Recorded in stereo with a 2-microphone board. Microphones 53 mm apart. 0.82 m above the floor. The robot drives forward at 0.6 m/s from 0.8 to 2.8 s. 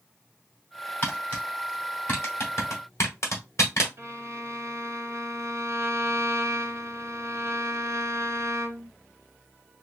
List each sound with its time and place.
1.0 s tapping: 40° left (ahead or behind), 2 m; by 3.9 s 65° left (ahead or behind), 1.5 m
4.0 s a violin: 55° right (ahead or behind), 1.4 m